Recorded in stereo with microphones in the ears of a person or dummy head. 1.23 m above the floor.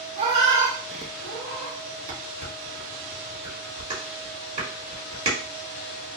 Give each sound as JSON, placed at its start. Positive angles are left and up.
{"t": 0.2, "sound": "a cat meowing", "side_deg": -40, "distance_m": 0.8}
{"t": 2.1, "sound": "dishes clattering", "side_deg": -35, "distance_m": 1.6}